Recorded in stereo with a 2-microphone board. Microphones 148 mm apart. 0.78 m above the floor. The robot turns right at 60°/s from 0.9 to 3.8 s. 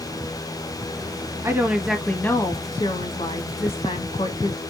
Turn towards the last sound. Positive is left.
turn(degrees=110)